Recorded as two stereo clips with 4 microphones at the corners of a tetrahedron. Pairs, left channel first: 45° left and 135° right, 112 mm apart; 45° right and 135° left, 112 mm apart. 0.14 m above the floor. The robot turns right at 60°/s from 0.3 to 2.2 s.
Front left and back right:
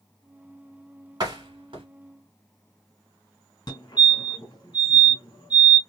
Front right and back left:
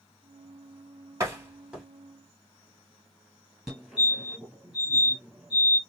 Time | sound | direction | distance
1.2 | a door slam | 175° right | 1.6 m
3.7 | a fire alarm | 50° left | 2.5 m